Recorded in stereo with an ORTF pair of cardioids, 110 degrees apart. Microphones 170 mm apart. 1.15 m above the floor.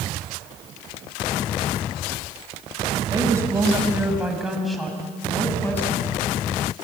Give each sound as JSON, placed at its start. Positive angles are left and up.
{"t": 3.1, "sound": "a woman speaking", "azimuth_deg": -20, "distance_m": 5.5}